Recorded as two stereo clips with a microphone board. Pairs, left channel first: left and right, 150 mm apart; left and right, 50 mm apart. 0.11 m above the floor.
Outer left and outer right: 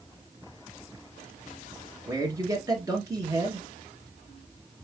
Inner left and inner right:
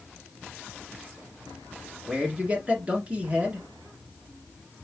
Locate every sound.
2.1 s a man speaking: 25° right (ahead or behind), 1.4 m